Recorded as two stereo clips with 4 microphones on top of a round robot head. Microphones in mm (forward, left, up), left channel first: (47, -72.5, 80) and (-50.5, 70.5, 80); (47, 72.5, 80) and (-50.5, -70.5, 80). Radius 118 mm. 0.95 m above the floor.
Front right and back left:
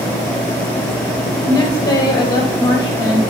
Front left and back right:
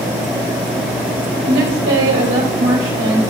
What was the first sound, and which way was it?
A woman speaking, 125° right.